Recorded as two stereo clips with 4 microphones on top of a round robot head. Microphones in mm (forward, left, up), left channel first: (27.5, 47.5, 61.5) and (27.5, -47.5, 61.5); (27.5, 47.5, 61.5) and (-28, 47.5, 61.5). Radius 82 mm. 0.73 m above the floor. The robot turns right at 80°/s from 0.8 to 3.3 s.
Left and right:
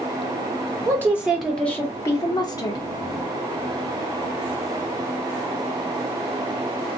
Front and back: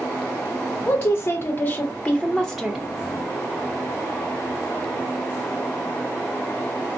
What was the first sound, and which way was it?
A woman speaking, 45° right.